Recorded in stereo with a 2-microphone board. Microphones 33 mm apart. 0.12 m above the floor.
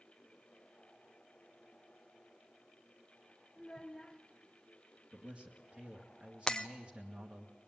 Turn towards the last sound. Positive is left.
turn(degrees=25)  # may be behind; listen again after turning